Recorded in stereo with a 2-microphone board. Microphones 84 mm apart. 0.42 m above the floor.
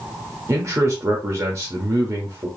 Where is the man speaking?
35° right (ahead or behind), 0.9 m.